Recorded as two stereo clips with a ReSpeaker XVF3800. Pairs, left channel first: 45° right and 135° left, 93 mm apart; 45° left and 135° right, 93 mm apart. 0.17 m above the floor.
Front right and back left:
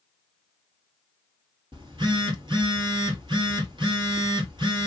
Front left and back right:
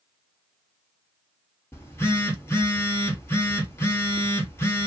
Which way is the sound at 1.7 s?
110° left.